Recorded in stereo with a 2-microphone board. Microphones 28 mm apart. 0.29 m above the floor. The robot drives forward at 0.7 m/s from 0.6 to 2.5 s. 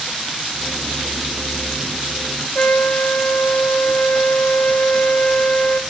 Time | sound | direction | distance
2.5 | a trumpet | 60° left (ahead or behind) | 1.3 m